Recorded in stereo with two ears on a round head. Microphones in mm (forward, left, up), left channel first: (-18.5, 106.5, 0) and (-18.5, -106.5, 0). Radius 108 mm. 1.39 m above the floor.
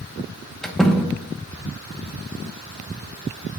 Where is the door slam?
Centre (ahead or behind), 1.0 m.